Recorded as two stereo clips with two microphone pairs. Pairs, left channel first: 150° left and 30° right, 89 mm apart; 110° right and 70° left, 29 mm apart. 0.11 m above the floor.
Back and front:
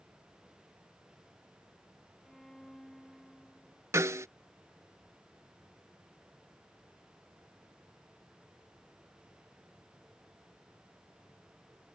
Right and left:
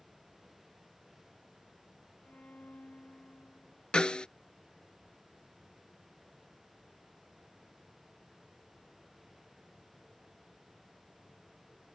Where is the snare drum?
70° right.